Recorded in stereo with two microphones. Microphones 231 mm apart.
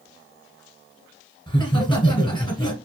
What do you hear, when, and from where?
1.5 s laughter: 20° left (ahead or behind), 1.2 m